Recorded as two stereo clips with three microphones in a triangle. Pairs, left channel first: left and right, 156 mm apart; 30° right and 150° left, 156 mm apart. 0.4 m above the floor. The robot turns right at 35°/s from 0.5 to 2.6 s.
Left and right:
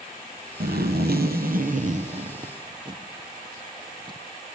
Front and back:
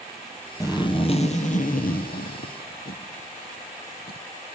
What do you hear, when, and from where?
0.6 s a zipper: 100° right, 1.6 m; by 4.2 s 30° right, 1.6 m